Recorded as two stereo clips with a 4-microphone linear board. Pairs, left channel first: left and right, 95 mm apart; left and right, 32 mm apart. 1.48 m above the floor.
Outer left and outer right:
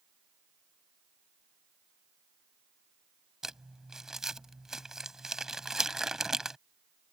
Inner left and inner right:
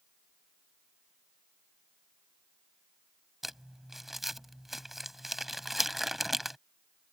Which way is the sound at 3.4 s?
5° right (ahead or behind).